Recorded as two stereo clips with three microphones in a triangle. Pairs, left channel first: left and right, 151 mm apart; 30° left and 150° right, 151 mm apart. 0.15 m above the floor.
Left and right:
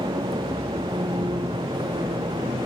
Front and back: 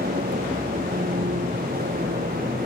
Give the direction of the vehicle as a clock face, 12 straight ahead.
5 o'clock.